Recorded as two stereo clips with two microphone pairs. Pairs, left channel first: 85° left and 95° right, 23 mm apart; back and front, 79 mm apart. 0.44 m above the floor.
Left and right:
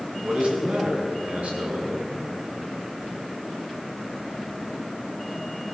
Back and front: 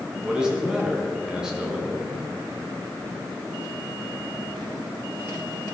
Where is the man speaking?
80° right, 5 m.